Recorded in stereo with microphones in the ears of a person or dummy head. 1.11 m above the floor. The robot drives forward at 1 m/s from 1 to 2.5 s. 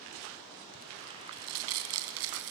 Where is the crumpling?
80° right, 3.5 m; by 2.5 s 70° right (ahead or behind), 3.5 m.